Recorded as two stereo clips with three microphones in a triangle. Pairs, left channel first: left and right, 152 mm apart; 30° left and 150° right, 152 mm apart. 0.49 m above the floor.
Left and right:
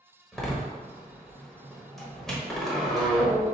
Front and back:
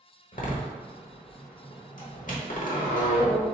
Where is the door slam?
5° left, 1.1 m.